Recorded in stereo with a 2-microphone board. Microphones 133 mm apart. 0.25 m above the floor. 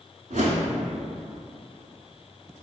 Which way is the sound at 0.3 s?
75° right (ahead or behind).